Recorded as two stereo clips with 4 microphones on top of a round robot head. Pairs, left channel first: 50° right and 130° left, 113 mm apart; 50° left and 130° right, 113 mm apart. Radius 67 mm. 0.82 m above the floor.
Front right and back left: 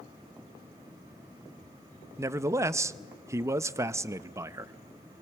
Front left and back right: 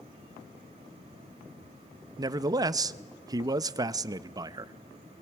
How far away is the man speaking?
About 0.7 m.